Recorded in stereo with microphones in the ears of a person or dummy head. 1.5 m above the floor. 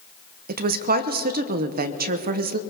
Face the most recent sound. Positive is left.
turn(degrees=-50)  # may be behind; listen again after turning